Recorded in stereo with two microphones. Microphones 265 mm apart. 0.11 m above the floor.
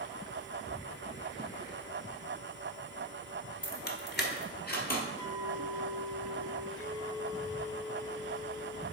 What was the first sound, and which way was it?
Keys jangling, 30° left (ahead or behind).